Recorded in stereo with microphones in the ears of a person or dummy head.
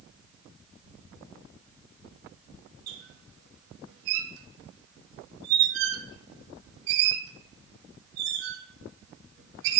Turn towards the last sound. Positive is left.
turn(degrees=-60)  # may be behind; listen again after turning